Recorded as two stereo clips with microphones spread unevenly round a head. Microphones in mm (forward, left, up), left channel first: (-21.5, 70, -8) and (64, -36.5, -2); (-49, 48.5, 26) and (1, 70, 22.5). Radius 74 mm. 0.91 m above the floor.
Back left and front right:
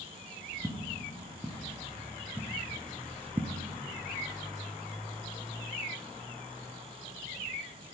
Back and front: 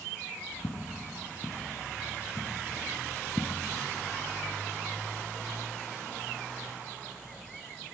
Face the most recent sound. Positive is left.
turn(degrees=-75)